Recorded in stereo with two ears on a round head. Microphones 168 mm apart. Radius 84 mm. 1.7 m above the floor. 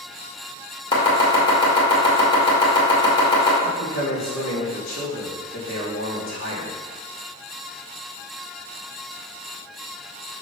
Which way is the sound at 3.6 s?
80° left.